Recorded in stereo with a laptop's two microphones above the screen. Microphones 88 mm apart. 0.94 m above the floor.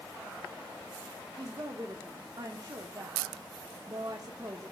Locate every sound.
1.4 s a woman speaking: 50° right (ahead or behind), 0.8 m